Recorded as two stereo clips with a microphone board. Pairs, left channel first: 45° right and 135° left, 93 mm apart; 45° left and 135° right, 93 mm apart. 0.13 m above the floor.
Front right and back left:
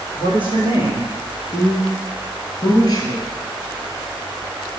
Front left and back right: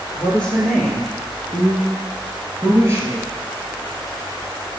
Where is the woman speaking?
30° right, 3 m; by 3.3 s 90° right, 2 m.